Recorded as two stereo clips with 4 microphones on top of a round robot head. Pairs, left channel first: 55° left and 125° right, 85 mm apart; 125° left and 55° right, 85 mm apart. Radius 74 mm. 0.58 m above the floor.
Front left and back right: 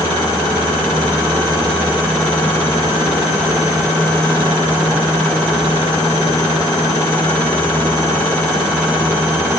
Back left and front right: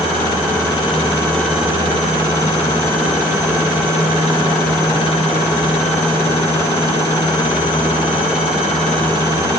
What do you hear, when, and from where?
Only background noise.